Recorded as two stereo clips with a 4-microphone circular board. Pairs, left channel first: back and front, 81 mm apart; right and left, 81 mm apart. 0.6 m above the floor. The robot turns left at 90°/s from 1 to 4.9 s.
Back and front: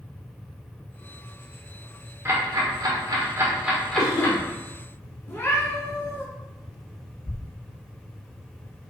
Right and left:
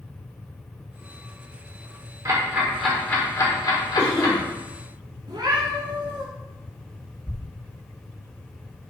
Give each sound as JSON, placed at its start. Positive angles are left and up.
{"t": 2.2, "sound": "ticking", "azimuth_deg": 55, "distance_m": 1.8}
{"t": 4.0, "sound": "a cough", "azimuth_deg": -155, "distance_m": 2.5}
{"t": 5.3, "sound": "a cat meowing", "azimuth_deg": 120, "distance_m": 1.6}
{"t": 7.3, "sound": "a thud", "azimuth_deg": 140, "distance_m": 0.6}